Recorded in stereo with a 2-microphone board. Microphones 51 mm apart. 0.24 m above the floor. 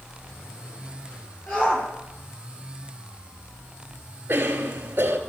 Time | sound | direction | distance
1.5 | a shout | 40° left (ahead or behind) | 5.5 m
4.3 | a cough | 40° right (ahead or behind) | 2.5 m